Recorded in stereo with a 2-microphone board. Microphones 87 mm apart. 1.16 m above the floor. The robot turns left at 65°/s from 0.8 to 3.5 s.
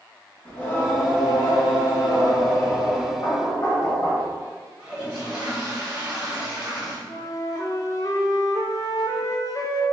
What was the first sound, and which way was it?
Singing, 155° left.